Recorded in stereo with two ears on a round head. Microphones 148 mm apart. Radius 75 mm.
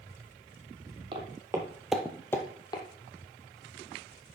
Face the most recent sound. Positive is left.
turn(degrees=25)  # may be behind; listen again after turning